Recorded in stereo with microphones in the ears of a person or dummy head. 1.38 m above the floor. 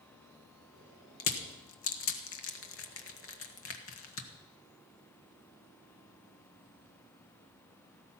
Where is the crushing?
70° left (ahead or behind), 1.4 m.